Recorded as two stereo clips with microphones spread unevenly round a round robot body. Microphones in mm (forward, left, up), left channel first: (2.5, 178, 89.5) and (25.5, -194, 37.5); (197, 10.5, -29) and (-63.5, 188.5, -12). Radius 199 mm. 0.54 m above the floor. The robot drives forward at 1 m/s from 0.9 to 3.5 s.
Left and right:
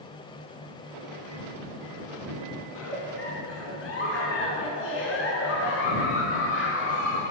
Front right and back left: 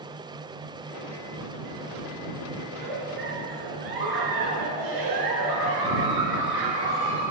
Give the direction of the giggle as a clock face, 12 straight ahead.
7 o'clock.